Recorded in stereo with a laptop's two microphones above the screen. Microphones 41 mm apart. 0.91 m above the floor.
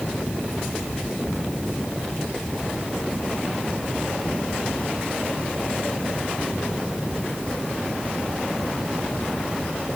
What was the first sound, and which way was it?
Only background noise.